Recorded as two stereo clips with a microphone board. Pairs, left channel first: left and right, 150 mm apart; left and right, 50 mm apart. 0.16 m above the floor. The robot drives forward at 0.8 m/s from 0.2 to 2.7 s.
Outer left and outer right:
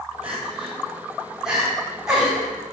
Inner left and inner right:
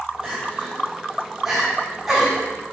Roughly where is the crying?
Centre.